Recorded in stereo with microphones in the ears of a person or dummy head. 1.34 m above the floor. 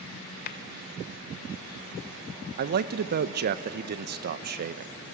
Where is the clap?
55° left (ahead or behind), 0.8 m.